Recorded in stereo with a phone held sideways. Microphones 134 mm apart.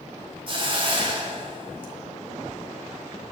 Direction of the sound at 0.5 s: 40° right (ahead or behind).